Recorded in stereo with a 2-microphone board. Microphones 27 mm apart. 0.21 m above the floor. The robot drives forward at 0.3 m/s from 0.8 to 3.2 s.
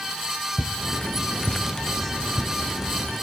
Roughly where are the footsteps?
Right.